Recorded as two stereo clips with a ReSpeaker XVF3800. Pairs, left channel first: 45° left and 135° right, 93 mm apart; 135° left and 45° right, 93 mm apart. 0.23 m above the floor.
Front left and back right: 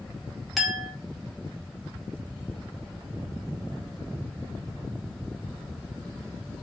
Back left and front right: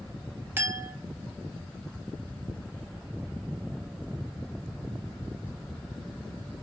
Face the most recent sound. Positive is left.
turn(degrees=-45)